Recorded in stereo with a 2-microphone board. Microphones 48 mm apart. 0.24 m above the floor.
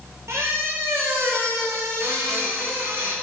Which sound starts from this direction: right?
A squeak, at 0.3 s.